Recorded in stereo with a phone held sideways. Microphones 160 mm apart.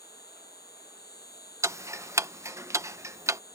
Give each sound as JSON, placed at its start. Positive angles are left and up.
{"t": 0.0, "sound": "an insect", "side_deg": 85}
{"t": 1.6, "sound": "ticking", "side_deg": -20}